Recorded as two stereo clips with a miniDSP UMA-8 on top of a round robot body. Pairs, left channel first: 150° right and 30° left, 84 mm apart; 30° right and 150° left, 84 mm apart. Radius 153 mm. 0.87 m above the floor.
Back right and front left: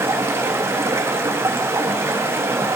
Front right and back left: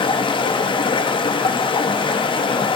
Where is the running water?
30° right, 1.2 m.